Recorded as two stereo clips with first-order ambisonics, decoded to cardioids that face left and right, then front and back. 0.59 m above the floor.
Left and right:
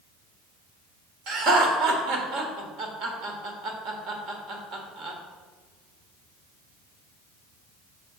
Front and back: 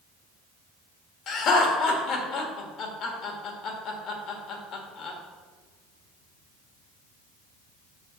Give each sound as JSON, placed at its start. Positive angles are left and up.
{"t": 1.3, "sound": "laughter", "azimuth_deg": -45, "distance_m": 1.4}